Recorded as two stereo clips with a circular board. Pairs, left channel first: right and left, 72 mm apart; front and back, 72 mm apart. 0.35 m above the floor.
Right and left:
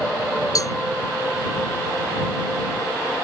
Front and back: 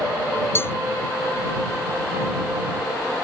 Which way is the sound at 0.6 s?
55° right.